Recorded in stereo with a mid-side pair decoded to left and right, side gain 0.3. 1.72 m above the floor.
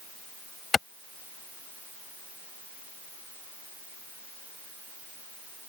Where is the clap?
45° left.